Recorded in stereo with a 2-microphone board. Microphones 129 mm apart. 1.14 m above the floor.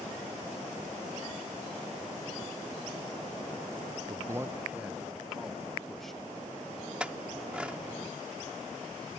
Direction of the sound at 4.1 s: 20° right (ahead or behind).